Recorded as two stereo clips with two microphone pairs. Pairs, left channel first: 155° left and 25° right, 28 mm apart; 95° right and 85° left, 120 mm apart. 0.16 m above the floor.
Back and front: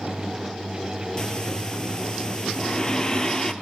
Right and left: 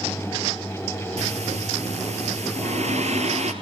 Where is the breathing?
95° left, 2 m.